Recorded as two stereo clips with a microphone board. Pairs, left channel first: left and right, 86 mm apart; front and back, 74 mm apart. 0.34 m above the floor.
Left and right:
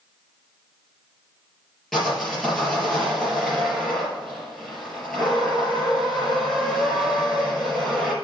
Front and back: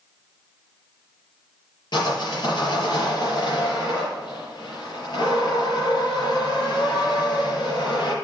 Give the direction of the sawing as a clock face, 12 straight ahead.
12 o'clock.